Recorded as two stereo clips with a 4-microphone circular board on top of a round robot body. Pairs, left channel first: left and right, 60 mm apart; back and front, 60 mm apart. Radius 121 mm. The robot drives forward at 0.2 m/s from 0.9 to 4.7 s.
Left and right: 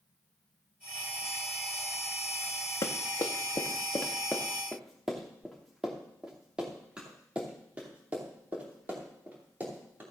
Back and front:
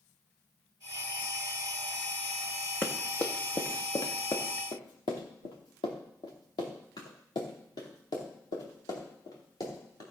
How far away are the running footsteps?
About 1.6 m.